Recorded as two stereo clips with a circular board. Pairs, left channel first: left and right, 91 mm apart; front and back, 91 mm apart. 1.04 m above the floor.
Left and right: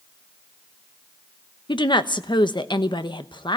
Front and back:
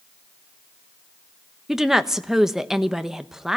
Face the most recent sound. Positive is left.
turn(degrees=95)